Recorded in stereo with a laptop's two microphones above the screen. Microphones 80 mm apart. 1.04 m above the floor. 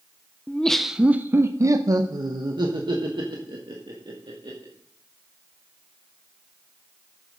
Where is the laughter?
20° left (ahead or behind), 0.6 m; by 4.7 s 75° right (ahead or behind), 2 m.